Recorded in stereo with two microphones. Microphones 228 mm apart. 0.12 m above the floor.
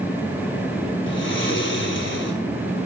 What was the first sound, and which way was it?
Snoring, 60° left (ahead or behind).